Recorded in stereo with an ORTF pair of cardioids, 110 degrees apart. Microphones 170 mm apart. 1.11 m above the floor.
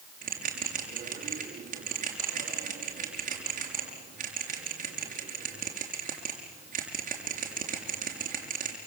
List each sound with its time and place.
0.2 s a bell: 45° right, 6 m